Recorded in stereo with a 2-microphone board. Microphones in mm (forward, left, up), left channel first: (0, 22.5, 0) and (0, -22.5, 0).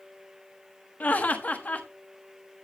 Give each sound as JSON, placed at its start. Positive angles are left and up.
{"t": 1.0, "sound": "laughter", "side_deg": 35, "distance_m": 1.2}